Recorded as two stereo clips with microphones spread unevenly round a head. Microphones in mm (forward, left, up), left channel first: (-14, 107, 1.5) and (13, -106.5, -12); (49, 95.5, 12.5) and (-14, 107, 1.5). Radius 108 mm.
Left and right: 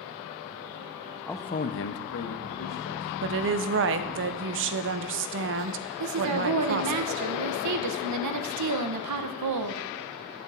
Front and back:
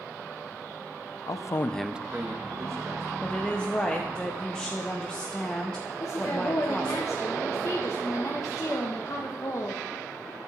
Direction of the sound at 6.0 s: 80° right.